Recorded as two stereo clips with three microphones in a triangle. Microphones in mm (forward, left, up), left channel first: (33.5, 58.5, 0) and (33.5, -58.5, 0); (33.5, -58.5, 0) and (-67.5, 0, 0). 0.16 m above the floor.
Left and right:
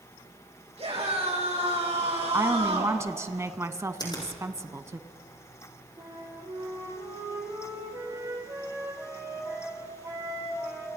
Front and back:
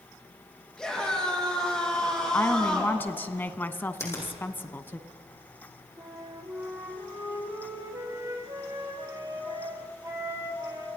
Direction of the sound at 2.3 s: 75° right.